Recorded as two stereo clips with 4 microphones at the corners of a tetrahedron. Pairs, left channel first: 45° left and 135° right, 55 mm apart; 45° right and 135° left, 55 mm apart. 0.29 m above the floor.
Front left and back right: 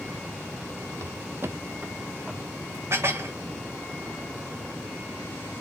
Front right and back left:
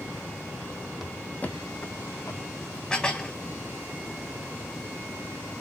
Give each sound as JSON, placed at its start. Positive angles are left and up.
{"t": 1.0, "sound": "footsteps", "azimuth_deg": -140, "distance_m": 0.6}
{"t": 2.9, "sound": "dishes clattering", "azimuth_deg": -115, "distance_m": 1.1}